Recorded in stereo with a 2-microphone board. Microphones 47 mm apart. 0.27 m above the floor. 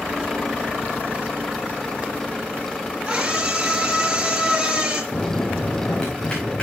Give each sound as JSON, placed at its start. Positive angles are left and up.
{"t": 3.0, "sound": "a scream", "side_deg": -15, "distance_m": 4.5}
{"t": 5.1, "sound": "a bell", "side_deg": 25, "distance_m": 4.0}